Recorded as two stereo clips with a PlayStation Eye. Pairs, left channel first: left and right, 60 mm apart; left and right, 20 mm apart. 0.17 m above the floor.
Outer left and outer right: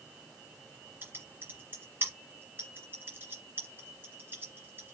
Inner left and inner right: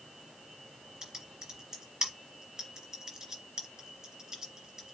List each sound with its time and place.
1.0 s typing on a keyboard: 35° right (ahead or behind), 2 m